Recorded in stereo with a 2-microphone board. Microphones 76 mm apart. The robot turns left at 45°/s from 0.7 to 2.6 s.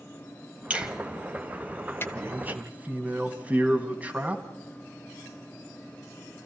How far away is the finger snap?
About 1.2 m.